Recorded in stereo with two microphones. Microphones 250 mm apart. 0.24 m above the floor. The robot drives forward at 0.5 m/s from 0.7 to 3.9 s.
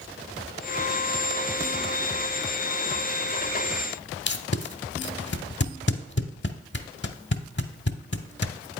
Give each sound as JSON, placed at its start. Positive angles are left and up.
{"t": 4.3, "sound": "tape being pulled", "side_deg": 45, "distance_m": 0.7}